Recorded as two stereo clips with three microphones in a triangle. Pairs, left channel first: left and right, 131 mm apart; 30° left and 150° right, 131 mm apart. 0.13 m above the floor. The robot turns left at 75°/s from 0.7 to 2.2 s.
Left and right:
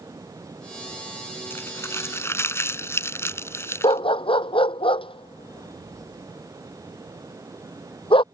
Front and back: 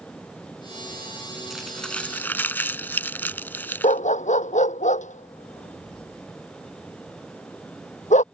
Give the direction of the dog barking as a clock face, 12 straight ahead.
11 o'clock.